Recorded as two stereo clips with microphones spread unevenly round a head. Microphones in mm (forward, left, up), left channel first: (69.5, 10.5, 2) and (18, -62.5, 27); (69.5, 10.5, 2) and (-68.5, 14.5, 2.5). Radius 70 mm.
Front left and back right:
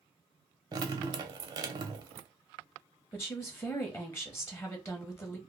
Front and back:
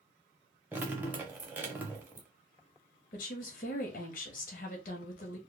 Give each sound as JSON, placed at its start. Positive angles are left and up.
{"t": 0.7, "sound": "dripping", "azimuth_deg": -105, "distance_m": 0.6}
{"t": 3.1, "sound": "a woman speaking", "azimuth_deg": -15, "distance_m": 0.7}